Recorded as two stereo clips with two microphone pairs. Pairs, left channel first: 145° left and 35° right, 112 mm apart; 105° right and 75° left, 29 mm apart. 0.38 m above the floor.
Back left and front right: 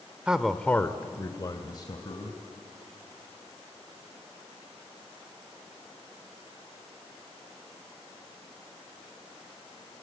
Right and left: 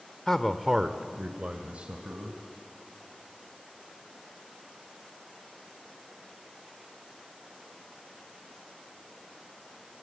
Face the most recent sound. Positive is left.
turn(degrees=105)